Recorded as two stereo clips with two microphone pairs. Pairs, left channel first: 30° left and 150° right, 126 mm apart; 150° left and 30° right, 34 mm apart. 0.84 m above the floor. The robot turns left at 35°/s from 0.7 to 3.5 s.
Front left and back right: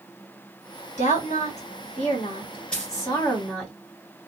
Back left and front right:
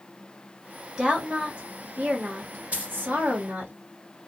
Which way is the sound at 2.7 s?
50° right.